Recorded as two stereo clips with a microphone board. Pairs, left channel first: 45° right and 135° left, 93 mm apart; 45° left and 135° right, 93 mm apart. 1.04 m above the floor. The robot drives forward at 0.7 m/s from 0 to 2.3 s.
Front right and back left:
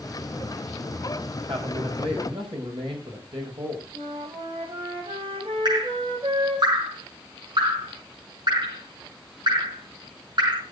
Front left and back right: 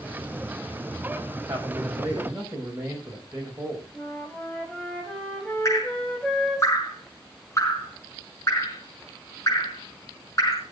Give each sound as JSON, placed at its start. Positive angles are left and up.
{"t": 1.5, "sound": "a man speaking", "azimuth_deg": 160, "distance_m": 4.5}
{"t": 3.9, "sound": "a flute", "azimuth_deg": 125, "distance_m": 4.0}
{"t": 5.7, "sound": "dripping", "azimuth_deg": 100, "distance_m": 5.0}